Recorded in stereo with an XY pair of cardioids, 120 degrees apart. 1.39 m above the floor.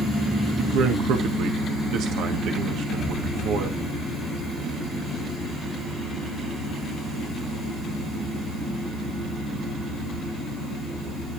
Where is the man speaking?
70° right, 1.8 m.